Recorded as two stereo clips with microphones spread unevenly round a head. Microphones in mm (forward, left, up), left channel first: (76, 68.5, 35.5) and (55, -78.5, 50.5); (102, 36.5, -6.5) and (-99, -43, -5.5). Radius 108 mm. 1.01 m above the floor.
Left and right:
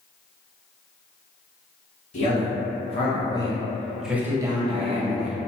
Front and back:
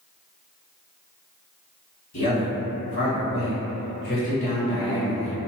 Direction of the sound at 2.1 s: 50° left.